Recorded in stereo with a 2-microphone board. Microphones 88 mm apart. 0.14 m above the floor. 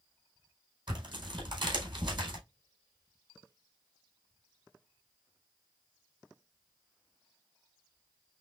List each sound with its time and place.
0.9 s tearing paper: 55° right (ahead or behind), 3.5 m